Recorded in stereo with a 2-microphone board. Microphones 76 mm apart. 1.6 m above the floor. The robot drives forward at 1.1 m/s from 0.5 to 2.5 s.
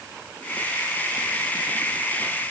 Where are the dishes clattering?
No dishes clattering in this recording.